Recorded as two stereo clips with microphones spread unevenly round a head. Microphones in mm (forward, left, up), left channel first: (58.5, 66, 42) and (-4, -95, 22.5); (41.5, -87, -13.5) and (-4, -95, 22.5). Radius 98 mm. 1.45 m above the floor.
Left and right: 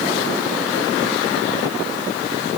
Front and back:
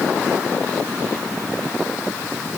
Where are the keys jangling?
No keys jangling in this recording.